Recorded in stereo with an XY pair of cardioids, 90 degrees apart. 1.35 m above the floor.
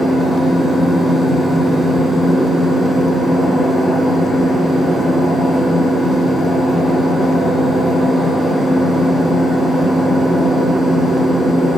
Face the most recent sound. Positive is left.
turn(degrees=50)